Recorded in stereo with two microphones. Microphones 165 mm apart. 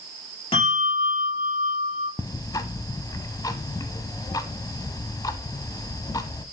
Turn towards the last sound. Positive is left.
turn(degrees=25)  # may be behind; listen again after turning